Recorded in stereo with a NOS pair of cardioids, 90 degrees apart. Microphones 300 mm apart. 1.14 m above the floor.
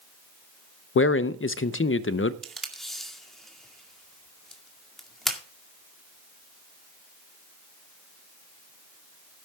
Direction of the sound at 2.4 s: Straight ahead.